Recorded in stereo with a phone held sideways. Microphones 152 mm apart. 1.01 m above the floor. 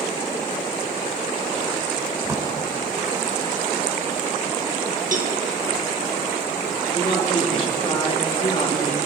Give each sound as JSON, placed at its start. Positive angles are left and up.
{"t": 2.2, "sound": "a drawer", "side_deg": -20, "distance_m": 2.0}
{"t": 5.1, "sound": "a cowbell", "side_deg": -60, "distance_m": 1.1}
{"t": 6.9, "sound": "a man speaking", "side_deg": 35, "distance_m": 1.9}